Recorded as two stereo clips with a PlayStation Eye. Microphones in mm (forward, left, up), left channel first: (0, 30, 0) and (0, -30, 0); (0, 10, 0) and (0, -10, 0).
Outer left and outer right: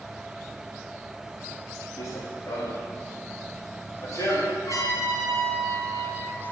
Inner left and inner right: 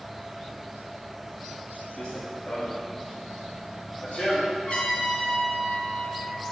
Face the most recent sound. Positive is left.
turn(degrees=70)  # may be behind; listen again after turning